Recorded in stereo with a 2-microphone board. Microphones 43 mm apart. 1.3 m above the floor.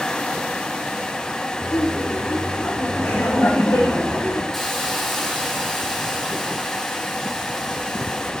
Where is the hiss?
5° left (ahead or behind), 10 m.